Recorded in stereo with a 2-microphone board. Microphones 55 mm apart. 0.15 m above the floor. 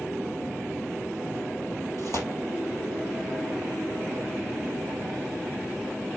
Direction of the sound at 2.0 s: 55° left (ahead or behind).